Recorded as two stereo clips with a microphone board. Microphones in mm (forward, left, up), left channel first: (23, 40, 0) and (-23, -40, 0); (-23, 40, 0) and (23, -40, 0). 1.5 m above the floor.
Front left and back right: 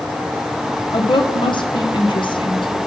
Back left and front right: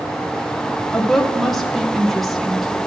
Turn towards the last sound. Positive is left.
turn(degrees=30)